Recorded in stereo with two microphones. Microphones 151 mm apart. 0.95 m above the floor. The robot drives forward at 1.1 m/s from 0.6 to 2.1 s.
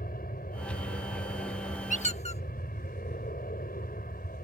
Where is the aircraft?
75° left (ahead or behind); by 4.4 s 70° left (ahead or behind).